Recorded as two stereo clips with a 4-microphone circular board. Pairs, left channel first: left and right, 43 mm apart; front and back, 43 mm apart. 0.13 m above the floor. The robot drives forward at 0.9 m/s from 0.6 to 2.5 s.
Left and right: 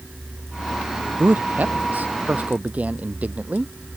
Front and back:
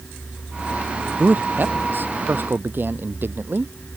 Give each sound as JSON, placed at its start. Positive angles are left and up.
{"t": 1.2, "sound": "a man speaking", "azimuth_deg": -135}